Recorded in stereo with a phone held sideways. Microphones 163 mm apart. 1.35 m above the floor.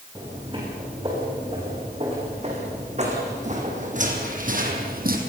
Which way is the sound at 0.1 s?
30° right (ahead or behind).